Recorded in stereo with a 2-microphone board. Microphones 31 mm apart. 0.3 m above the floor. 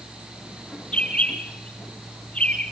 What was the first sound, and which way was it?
A bird, 35° left (ahead or behind).